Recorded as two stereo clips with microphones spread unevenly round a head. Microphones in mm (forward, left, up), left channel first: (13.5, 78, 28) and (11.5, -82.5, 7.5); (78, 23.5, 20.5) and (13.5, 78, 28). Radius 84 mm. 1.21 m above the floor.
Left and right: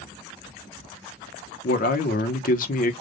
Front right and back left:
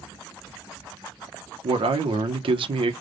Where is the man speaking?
130° left, 0.9 m.